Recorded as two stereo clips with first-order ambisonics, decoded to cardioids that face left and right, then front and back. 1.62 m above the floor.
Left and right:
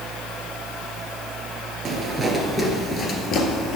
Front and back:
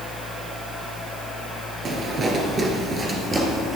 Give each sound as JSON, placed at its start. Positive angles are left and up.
{"t": 1.9, "sound": "footsteps", "azimuth_deg": -140, "distance_m": 1.8}